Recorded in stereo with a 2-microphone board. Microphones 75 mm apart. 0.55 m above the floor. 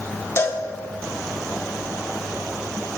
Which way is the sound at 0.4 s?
40° left (ahead or behind).